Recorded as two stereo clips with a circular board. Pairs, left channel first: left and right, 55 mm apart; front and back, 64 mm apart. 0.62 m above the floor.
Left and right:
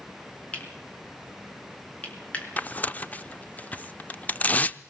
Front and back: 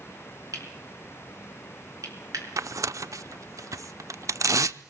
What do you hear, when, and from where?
0.5 s cutlery clinking: 155° left, 4 m
2.6 s tearing paper: 150° left, 0.6 m